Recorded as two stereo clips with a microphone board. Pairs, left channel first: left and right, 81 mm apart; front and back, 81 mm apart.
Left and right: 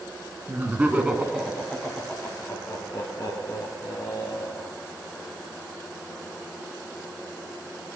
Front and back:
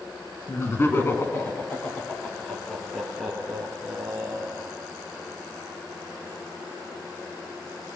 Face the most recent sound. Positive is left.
turn(degrees=100)